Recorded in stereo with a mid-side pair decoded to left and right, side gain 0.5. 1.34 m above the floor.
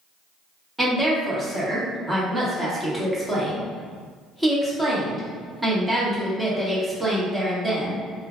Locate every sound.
0.8 s a woman speaking: 15° right, 1.5 m